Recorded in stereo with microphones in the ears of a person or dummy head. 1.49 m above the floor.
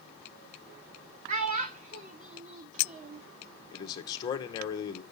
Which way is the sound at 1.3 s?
45° right (ahead or behind).